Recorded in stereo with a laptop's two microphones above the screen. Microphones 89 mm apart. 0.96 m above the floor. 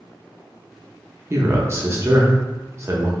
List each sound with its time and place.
1.3 s a man speaking: 30° right (ahead or behind), 0.6 m